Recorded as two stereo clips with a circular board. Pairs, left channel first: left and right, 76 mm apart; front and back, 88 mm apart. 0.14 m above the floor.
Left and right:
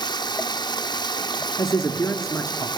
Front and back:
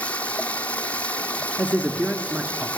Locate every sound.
0.0 s running water: 75° left, 0.8 m
1.6 s a man speaking: 110° left, 1.5 m